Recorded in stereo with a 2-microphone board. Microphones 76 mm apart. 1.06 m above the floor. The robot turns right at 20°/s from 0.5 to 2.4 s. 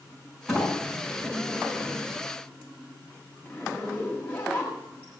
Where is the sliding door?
10° right, 7 m; by 2.2 s 25° left, 7 m.